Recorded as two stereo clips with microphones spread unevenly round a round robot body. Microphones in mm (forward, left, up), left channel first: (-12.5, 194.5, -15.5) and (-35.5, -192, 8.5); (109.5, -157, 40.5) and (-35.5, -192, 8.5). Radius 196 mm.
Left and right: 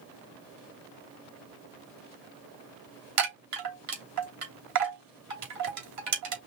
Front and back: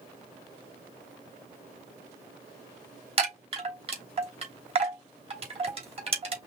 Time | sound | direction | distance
3.2 | a chime | 135° right | 3 m